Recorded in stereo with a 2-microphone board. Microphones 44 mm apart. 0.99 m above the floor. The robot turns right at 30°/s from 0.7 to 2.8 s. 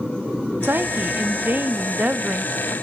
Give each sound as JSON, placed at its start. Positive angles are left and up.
{"t": 0.6, "sound": "a woman speaking", "azimuth_deg": -95, "distance_m": 0.8}